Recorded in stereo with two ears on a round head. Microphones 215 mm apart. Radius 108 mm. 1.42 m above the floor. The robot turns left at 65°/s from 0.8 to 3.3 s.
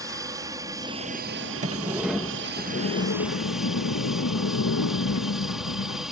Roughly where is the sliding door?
Behind right.